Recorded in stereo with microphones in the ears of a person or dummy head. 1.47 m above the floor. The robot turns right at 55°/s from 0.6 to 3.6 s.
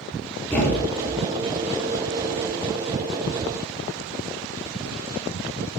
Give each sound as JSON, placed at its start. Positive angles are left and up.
{"t": 0.5, "sound": "a thud", "side_deg": 5, "distance_m": 5.0}